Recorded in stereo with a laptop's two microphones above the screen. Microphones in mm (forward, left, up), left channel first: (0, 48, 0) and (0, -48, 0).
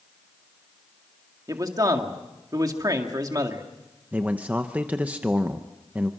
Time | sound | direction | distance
1.5 | a man speaking | 40° right (ahead or behind) | 1.9 m
4.1 | a man speaking | 15° right (ahead or behind) | 0.7 m